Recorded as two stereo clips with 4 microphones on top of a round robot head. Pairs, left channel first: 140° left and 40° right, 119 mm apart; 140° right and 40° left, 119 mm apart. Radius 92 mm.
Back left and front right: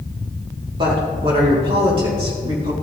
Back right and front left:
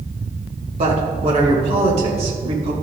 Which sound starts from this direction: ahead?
A woman speaking, at 0.8 s.